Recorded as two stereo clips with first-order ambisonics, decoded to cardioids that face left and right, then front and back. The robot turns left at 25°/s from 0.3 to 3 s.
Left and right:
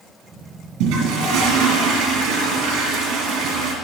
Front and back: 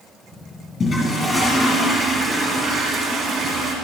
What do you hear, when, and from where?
0.8 s a toilet flushing: 60° right, 3.5 m; by 3.8 s 115° right, 3.5 m